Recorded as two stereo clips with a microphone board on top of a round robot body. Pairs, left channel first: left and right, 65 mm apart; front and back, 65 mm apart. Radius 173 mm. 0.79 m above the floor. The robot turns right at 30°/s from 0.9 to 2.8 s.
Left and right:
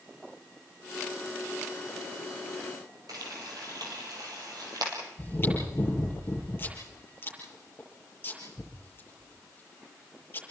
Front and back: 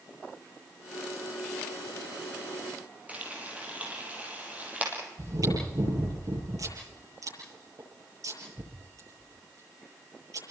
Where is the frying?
115° right, 4.5 m.